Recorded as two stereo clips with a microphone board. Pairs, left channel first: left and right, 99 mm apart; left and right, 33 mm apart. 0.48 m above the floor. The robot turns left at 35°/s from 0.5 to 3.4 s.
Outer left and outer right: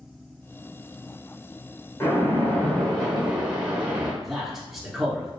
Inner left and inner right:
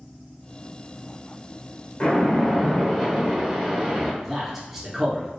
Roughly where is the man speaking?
Centre.